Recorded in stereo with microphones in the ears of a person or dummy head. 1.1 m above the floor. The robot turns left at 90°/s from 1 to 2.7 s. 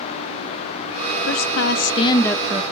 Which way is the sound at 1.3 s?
100° left.